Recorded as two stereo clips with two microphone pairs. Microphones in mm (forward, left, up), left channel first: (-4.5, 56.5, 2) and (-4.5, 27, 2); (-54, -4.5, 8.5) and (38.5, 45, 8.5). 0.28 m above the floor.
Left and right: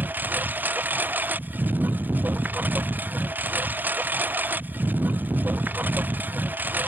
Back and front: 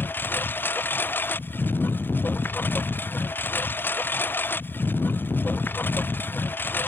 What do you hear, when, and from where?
0.0 s a lawn mower: 80° right